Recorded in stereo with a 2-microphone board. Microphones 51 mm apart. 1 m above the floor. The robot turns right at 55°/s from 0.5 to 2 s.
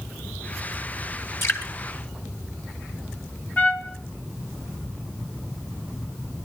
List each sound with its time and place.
1.4 s dripping: 55° left (ahead or behind), 3 m; by 1.7 s 40° left (ahead or behind), 3 m
3.6 s a trumpet: 30° left (ahead or behind), 1.6 m